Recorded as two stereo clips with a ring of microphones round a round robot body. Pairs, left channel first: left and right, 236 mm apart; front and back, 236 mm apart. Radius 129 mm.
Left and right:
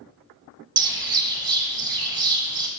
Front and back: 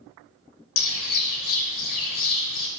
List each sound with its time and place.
0.8 s a bird: 20° right, 1.1 m